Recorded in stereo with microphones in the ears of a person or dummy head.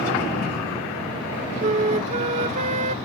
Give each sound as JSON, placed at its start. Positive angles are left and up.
{"t": 1.6, "sound": "a flute", "side_deg": -40}